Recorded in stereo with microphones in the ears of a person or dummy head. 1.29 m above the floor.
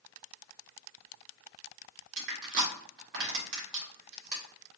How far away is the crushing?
About 1.8 m.